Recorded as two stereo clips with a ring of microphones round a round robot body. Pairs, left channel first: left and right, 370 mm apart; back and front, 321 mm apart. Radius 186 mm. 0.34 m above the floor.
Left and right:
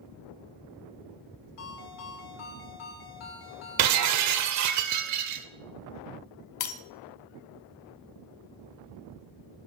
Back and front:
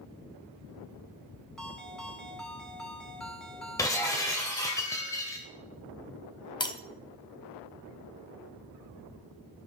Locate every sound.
1.6 s a ringtone: 90° left, 2.5 m
3.8 s breaking glass: 105° right, 0.6 m
6.6 s breaking glass: 105° left, 0.7 m